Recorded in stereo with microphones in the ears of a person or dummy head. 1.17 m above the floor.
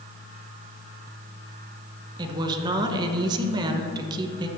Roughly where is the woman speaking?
Right.